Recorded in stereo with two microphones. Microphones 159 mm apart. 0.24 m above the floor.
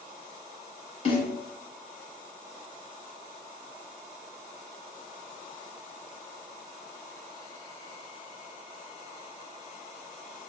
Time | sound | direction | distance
1.1 | a snare drum | 40° left (ahead or behind) | 1.0 m